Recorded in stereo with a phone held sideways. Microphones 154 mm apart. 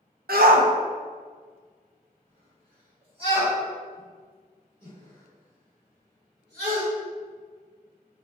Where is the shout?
80° right, 0.7 m; by 6.8 s 30° right (ahead or behind), 4 m.